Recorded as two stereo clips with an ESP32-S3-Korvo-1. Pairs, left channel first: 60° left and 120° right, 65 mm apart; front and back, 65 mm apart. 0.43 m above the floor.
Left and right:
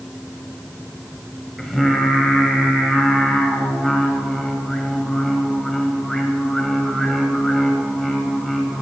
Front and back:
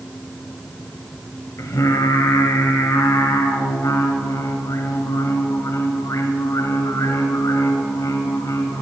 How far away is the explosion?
I don't hear an explosion.